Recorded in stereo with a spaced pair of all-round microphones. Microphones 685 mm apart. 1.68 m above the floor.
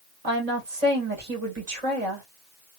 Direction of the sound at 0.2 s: 55° right (ahead or behind).